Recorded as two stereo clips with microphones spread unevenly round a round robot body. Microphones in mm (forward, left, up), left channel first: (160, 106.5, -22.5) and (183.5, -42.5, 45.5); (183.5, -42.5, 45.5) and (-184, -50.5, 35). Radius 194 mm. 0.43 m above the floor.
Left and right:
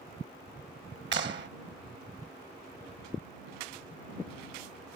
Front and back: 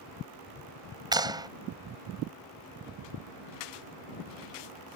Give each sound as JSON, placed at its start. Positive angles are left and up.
{"t": 1.1, "sound": "a clap", "azimuth_deg": -100}